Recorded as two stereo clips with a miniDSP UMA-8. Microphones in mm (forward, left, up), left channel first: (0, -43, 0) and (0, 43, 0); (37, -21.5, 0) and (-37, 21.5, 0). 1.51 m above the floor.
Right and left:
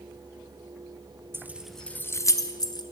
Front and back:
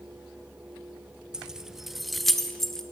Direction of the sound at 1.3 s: 75° left.